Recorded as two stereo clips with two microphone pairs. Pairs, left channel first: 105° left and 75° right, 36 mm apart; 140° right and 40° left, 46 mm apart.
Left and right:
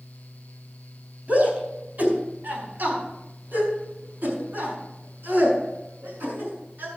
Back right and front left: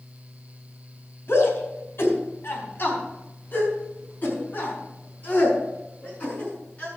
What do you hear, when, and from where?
1.3 s a shout: 110° right, 4 m; by 6.9 s 80° right, 7 m